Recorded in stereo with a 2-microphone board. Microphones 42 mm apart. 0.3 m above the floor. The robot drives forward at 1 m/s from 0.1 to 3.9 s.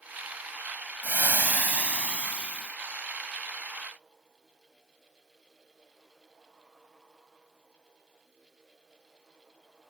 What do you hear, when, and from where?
1.0 s frying: 45° right (ahead or behind); by 2.8 s 25° right (ahead or behind)